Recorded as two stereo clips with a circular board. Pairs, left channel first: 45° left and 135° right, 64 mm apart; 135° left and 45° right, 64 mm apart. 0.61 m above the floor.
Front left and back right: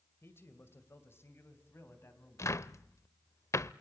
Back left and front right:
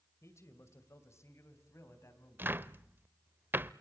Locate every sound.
0.2 s a man speaking: 95° left, 2.5 m
2.4 s a cupboard door: 10° left, 0.5 m